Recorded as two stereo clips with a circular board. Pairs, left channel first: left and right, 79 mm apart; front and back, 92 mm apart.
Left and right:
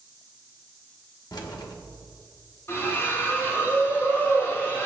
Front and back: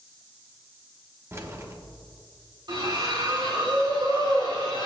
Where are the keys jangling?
120° left, 1.0 m.